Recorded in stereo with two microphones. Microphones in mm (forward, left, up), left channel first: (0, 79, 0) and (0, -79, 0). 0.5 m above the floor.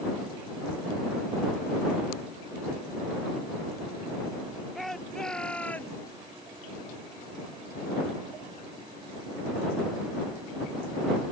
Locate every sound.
4.8 s a shout: centre (ahead or behind); by 6.0 s 10° left (ahead or behind)